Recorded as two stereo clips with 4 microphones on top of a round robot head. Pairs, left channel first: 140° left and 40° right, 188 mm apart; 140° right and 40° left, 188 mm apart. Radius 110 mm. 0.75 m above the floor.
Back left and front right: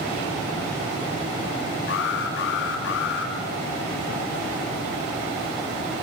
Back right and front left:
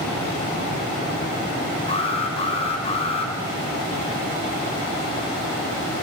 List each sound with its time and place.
1.9 s an alarm: 160° left, 5.5 m